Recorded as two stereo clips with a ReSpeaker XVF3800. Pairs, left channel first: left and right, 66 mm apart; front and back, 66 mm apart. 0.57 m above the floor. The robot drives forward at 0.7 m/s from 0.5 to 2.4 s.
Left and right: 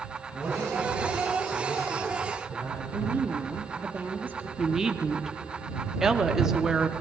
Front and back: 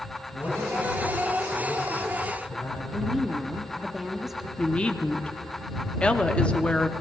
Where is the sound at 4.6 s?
25° right, 0.7 m.